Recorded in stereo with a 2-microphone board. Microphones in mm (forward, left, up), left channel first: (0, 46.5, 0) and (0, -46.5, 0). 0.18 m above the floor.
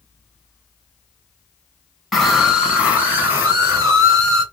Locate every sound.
2.1 s a scream: centre (ahead or behind), 1.1 m; by 4.4 s 40° right (ahead or behind), 1.7 m